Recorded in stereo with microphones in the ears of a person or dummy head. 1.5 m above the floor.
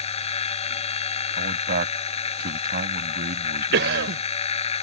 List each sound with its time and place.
0.0 s a machine running: 30° left (ahead or behind)
1.4 s a man speaking: 50° right (ahead or behind)
3.7 s a cough: 65° right (ahead or behind)